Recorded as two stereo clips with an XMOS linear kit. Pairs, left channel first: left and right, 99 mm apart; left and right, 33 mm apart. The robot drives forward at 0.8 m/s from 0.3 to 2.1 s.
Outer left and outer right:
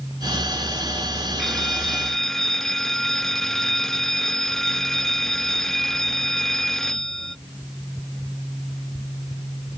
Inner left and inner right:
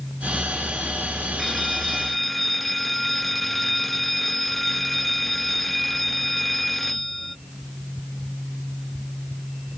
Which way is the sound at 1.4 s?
5° left (ahead or behind).